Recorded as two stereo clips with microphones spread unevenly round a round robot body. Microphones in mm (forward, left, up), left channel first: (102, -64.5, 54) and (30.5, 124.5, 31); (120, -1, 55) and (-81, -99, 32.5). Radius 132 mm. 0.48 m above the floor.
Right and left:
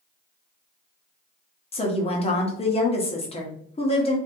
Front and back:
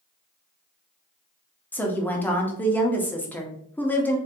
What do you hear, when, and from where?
1.7 s a woman speaking: 60° right, 1.0 m